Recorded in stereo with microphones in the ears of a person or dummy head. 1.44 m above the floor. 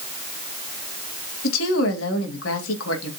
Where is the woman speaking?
80° left, 2.5 m.